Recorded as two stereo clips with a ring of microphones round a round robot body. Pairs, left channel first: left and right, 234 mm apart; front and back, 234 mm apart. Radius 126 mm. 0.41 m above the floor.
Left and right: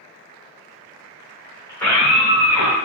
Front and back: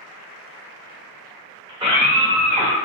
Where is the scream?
150° left, 1.1 m; by 2.8 s 135° right, 1.3 m.